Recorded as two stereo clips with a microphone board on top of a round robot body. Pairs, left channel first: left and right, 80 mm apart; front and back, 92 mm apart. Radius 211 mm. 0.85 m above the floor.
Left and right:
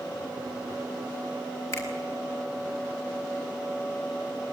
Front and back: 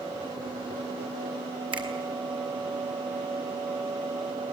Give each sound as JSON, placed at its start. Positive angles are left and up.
{"t": 1.7, "sound": "a finger snap", "azimuth_deg": 145, "distance_m": 4.5}